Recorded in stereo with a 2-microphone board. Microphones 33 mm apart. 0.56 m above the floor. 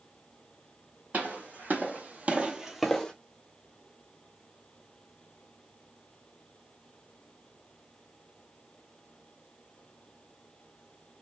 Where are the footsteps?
50° right (ahead or behind), 1.7 m; by 3.1 s 20° left (ahead or behind), 0.8 m.